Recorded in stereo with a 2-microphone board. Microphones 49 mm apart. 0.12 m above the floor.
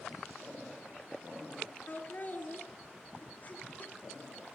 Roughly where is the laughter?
Left.